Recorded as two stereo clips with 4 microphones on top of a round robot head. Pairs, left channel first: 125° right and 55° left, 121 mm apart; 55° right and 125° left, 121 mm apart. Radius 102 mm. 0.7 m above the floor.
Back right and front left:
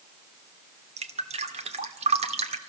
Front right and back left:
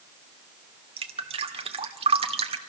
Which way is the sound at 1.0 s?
85° left.